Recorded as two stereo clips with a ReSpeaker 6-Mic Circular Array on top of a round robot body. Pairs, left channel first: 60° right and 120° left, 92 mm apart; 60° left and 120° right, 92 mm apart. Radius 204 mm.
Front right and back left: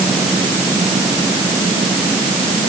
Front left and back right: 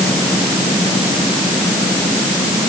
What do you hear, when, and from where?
Only background noise.